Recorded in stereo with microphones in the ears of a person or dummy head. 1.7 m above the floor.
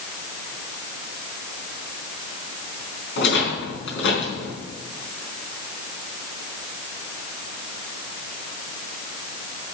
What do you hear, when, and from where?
3.2 s a rattle: 65° left (ahead or behind), 4 m